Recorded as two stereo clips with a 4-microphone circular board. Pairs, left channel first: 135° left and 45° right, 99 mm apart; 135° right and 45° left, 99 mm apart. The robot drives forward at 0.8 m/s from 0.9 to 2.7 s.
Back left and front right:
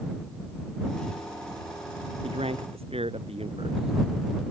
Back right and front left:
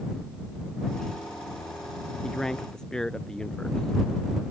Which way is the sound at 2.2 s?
50° right.